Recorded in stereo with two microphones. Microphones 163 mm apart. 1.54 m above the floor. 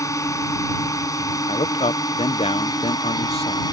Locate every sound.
0.0 s a drone: 20° left (ahead or behind); by 3.7 s 25° left (ahead or behind)
1.5 s a man speaking: 40° left (ahead or behind)